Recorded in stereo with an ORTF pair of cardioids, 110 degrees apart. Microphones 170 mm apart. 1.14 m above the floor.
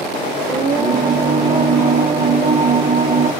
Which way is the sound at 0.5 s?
55° right.